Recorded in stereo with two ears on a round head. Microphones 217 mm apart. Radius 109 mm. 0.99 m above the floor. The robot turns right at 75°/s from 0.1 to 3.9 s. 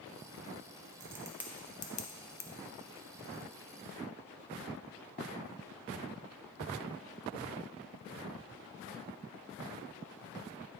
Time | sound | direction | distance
1.0 | a crack | 35° right (ahead or behind) | 0.5 m